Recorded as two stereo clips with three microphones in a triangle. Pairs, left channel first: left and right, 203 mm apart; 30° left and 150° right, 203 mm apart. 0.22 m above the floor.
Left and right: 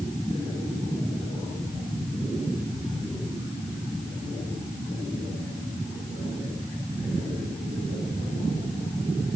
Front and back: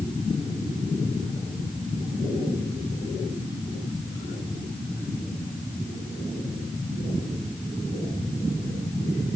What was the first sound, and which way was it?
Only background noise.